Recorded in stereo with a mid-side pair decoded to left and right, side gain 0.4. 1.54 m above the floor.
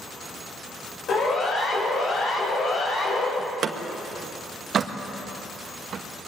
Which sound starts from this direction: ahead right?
A door slam, at 3.4 s.